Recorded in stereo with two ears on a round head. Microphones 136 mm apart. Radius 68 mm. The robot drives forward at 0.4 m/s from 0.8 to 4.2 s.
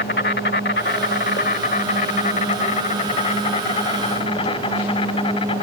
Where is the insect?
70° left (ahead or behind); by 5.6 s 35° left (ahead or behind).